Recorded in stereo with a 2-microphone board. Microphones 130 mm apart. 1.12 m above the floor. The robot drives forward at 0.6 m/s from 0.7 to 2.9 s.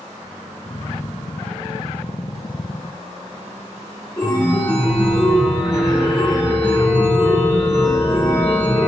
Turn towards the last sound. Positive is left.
turn(degrees=25)  # may be behind; listen again after turning